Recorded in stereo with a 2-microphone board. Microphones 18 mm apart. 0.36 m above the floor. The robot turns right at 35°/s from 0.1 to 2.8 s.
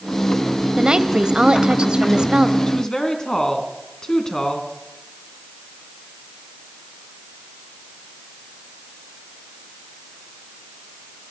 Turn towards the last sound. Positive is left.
turn(degrees=30)  # may be behind; listen again after turning